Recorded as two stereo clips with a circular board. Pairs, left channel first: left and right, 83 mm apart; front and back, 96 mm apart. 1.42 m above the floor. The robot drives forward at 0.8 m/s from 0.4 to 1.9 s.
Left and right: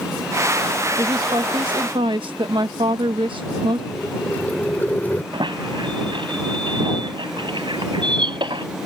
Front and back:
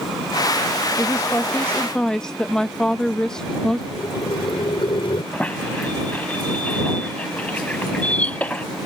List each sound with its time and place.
1.0 s a woman speaking: 60° right; by 3.8 s 85° right
3.9 s boiling: 20° left
5.3 s a squeak: 75° right